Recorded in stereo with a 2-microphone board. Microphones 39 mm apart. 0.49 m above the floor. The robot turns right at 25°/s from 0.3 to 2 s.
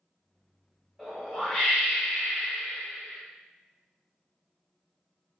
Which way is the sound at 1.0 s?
5° right (ahead or behind).